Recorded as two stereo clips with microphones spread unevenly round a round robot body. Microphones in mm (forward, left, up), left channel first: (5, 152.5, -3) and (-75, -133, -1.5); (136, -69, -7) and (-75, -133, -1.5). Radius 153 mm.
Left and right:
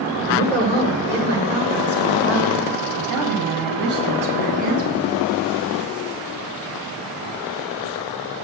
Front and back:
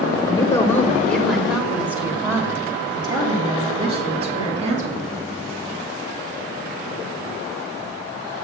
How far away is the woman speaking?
About 1.7 m.